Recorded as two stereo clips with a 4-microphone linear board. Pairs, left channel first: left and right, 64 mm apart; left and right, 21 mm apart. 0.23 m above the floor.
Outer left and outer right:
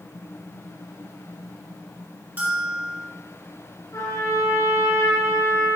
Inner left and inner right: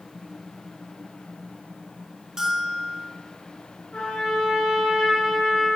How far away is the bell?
About 2 m.